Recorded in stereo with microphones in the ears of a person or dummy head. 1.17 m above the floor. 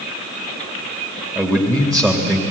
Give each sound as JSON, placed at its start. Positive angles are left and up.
{"t": 1.4, "sound": "a man speaking", "side_deg": 5, "distance_m": 1.8}